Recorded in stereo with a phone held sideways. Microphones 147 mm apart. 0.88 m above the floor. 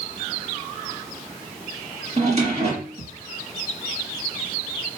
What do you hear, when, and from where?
2.2 s a drawer: 45° right (ahead or behind), 5 m